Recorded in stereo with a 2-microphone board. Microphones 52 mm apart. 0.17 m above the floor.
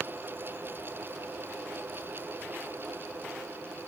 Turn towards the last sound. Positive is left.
No sound to turn to.